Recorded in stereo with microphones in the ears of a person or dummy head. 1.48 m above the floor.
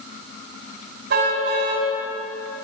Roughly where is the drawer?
I don't hear a drawer.